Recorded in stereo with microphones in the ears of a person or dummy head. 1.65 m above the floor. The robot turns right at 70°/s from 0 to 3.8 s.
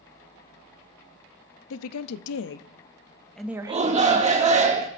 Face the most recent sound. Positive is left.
turn(degrees=-35)  # may be behind; listen again after turning